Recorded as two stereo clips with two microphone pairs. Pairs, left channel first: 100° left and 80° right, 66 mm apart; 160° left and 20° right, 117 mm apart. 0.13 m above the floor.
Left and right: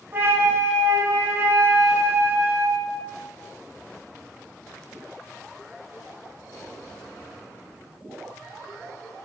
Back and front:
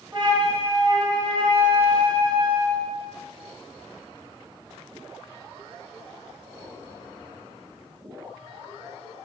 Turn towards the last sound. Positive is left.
turn(degrees=-40)